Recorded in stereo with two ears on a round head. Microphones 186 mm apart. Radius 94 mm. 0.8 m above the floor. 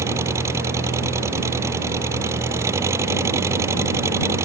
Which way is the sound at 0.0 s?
15° right (ahead or behind).